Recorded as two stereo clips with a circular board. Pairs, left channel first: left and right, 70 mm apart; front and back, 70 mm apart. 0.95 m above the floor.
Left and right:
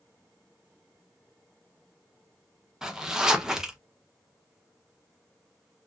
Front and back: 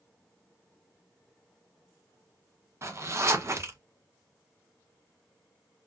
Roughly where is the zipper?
Behind.